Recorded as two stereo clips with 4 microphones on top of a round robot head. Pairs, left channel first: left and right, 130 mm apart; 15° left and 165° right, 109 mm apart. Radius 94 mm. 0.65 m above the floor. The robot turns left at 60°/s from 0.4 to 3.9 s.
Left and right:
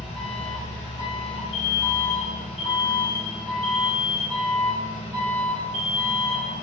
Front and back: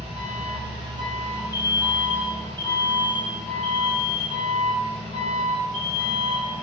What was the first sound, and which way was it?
An engine running, 170° right.